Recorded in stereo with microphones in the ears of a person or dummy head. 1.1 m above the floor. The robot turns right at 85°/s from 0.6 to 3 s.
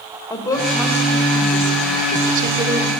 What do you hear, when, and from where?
0.3 s a woman speaking: 160° left, 4.5 m; by 2.9 s 5° right, 4.5 m